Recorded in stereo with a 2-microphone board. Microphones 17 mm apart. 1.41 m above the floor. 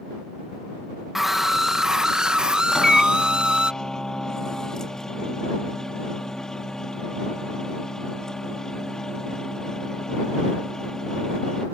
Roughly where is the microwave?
Left.